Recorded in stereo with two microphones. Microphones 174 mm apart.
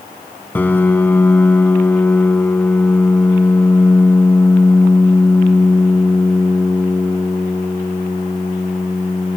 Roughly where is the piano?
Centre.